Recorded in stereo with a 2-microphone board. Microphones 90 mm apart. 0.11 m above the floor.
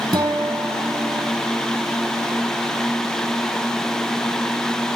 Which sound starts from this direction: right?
A guitar, at 0.1 s.